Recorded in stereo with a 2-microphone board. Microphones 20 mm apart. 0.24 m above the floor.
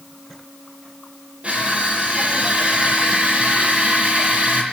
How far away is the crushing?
About 7.5 m.